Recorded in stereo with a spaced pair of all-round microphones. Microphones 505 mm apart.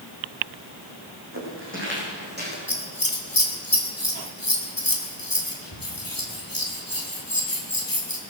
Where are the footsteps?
25° right (ahead or behind), 5 m; by 2.6 s 20° right (ahead or behind), 5 m.